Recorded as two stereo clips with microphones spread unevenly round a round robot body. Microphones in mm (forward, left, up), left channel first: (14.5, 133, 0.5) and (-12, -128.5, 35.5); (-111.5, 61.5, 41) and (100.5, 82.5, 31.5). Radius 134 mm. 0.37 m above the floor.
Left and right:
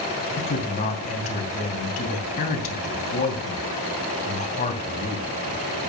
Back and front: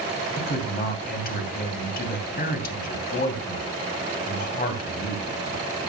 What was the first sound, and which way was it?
A man speaking, 140° left.